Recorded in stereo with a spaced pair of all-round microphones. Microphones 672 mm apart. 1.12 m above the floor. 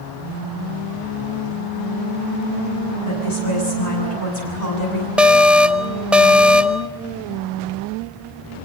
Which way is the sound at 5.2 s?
Centre (ahead or behind).